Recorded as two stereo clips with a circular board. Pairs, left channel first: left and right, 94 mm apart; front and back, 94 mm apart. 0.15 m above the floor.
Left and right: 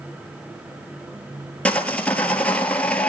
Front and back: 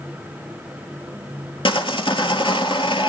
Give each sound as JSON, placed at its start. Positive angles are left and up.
{"t": 1.6, "sound": "sawing", "azimuth_deg": 15, "distance_m": 1.2}